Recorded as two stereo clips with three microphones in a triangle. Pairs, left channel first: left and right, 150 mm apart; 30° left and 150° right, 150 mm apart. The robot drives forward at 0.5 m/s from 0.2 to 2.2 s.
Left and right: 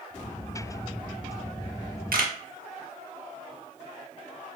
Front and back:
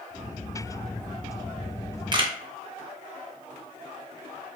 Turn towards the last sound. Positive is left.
turn(degrees=-95)